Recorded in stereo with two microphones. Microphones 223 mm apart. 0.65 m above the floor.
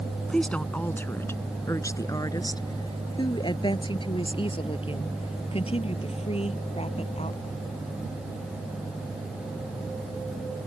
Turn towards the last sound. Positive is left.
turn(degrees=30)  # may be behind; listen again after turning